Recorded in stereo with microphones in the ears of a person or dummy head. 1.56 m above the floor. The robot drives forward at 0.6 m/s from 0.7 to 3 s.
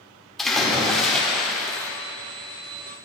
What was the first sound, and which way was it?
A splash, centre (ahead or behind).